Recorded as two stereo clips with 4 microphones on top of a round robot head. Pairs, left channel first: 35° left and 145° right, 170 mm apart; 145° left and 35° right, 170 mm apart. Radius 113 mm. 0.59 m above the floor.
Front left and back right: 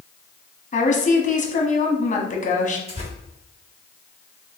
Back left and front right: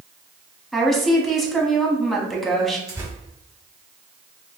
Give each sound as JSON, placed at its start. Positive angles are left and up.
{"t": 0.7, "sound": "a woman speaking", "azimuth_deg": 55, "distance_m": 1.1}
{"t": 2.9, "sound": "tearing paper", "azimuth_deg": -100, "distance_m": 1.8}